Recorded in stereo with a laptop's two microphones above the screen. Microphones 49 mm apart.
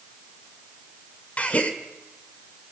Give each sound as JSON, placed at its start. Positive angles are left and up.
{"t": 1.4, "sound": "a gasp", "side_deg": 30, "distance_m": 1.6}